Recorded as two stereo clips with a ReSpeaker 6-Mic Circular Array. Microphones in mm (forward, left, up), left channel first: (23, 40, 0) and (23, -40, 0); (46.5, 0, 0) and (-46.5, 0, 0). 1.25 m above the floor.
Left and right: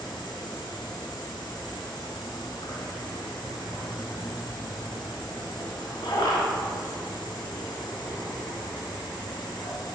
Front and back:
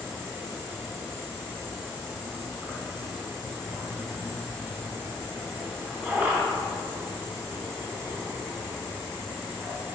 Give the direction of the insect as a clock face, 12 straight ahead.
8 o'clock.